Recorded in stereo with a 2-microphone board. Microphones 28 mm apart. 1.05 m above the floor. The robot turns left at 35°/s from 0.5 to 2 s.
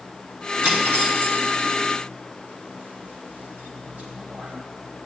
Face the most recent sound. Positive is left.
turn(degrees=-85)